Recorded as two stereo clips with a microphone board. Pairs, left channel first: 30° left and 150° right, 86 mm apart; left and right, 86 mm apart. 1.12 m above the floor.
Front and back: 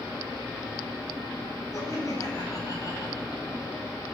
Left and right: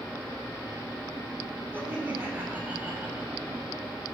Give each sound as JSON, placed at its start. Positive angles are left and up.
{"t": 1.7, "sound": "laughter", "azimuth_deg": -20, "distance_m": 8.0}